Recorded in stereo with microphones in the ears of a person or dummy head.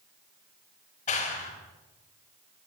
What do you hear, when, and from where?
1.1 s a clap: 40° left (ahead or behind), 5.5 m